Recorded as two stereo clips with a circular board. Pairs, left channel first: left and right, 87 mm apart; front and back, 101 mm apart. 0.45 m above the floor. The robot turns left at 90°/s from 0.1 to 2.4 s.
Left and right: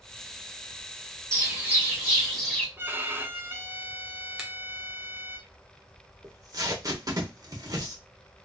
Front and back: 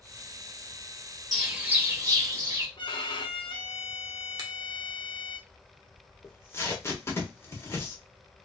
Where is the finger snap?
170° right, 0.9 m.